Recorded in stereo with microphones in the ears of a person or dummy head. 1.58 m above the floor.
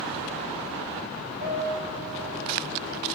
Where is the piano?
45° right (ahead or behind), 4 m.